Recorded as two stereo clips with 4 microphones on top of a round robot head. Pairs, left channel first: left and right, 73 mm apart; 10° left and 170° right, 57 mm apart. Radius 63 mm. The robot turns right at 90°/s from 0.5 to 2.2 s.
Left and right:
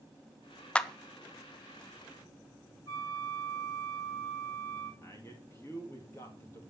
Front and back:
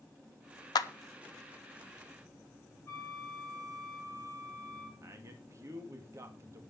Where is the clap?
10° left, 0.9 m; by 0.9 s 25° left, 0.9 m.